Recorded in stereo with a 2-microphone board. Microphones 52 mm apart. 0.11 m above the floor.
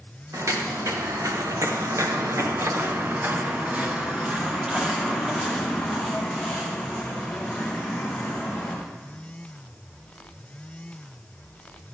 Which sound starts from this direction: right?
Footsteps, at 0.3 s.